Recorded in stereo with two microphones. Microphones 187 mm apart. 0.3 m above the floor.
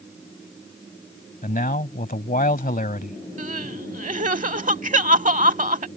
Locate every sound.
1.4 s a man speaking: 45° left (ahead or behind)
3.4 s crying: 45° right (ahead or behind)